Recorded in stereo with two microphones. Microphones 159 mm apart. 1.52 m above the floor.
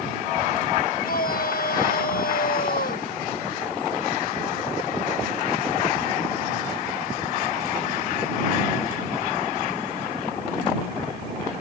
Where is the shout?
70° left (ahead or behind).